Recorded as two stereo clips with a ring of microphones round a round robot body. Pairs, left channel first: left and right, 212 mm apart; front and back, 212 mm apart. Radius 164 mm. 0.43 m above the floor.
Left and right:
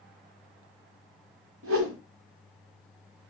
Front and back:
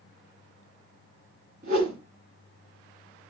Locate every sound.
1.6 s a whoosh: 120° right, 0.9 m